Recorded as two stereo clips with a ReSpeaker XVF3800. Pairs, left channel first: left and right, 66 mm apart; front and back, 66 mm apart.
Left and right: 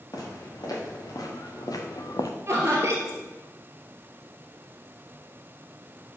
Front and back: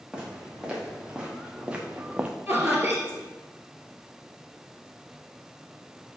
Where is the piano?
No piano in this recording.